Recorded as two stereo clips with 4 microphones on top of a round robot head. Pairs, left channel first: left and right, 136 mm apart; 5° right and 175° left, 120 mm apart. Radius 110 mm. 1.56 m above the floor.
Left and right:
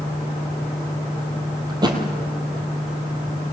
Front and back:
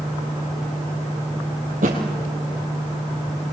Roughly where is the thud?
Behind right.